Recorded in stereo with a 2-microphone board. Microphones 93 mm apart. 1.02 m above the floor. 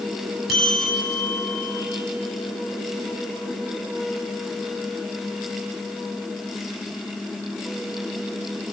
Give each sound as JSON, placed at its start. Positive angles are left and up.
{"t": 0.5, "sound": "a bell", "side_deg": 0, "distance_m": 7.5}